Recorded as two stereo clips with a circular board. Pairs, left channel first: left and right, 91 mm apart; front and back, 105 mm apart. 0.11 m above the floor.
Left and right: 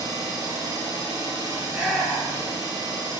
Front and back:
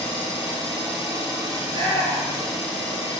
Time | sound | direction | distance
0.0 | an engine running | 130° right | 1.9 m
1.6 | a shout | 175° left | 2 m